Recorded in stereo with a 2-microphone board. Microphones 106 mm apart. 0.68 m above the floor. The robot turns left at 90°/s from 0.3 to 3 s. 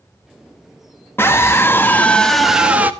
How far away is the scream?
About 1.0 m.